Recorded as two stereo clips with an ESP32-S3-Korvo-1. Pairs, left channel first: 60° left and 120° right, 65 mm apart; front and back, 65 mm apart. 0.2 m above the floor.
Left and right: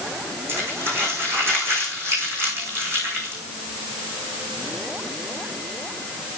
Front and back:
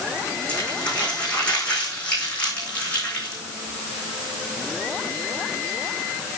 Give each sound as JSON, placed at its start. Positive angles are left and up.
{"t": 0.5, "sound": "crumpling", "azimuth_deg": -70, "distance_m": 5.0}